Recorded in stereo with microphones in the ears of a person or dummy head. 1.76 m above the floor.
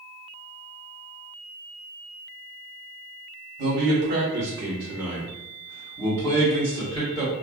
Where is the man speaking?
60° right (ahead or behind), 1.0 m; by 7.3 s 30° left (ahead or behind), 1.9 m.